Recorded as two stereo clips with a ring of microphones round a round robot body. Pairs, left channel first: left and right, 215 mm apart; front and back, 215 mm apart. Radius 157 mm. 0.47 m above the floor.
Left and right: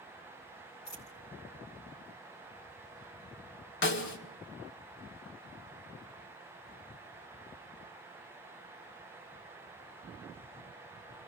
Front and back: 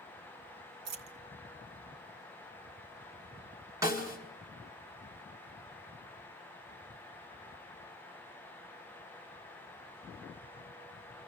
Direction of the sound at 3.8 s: 105° left.